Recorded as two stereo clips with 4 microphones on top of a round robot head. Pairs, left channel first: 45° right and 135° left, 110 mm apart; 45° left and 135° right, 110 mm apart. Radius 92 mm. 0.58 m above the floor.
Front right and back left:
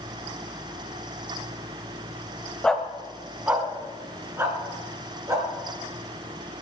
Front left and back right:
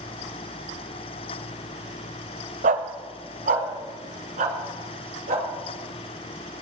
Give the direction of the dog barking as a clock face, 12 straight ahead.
4 o'clock.